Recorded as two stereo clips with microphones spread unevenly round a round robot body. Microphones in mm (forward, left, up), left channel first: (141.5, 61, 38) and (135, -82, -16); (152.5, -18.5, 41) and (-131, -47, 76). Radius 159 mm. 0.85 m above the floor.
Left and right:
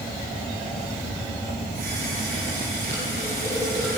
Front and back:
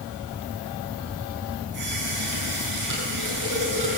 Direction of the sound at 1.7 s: 155° right.